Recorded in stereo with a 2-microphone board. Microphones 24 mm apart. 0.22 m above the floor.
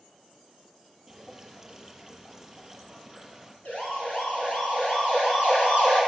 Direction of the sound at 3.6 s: 75° left (ahead or behind).